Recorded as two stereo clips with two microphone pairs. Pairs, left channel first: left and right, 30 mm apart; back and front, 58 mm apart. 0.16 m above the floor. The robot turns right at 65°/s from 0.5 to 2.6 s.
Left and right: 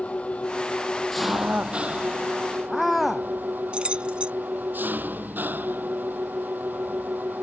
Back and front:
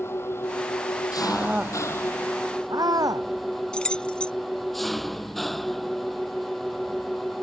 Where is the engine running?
135° left; by 7.4 s 90° right.